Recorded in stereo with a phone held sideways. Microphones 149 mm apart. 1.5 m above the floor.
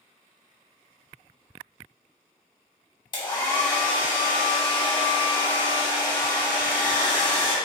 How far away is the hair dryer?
About 1.0 m.